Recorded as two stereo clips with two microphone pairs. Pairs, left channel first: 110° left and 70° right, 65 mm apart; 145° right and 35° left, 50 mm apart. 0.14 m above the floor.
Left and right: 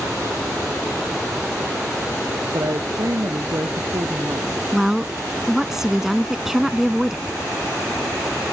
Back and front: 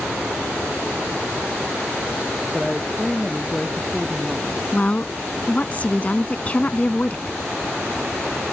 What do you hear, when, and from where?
2.5 s a woman speaking: 60° right
4.7 s a woman speaking: 145° right